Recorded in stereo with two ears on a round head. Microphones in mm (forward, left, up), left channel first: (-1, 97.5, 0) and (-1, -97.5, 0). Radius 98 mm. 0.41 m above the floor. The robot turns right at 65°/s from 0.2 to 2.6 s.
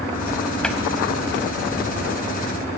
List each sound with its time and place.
0.6 s a cupboard door: 5° left (ahead or behind), 0.8 m; by 0.8 s 15° left (ahead or behind), 0.8 m